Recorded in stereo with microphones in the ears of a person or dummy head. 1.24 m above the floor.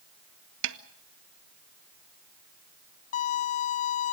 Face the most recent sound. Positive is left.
turn(degrees=45)  # may be behind; listen again after turning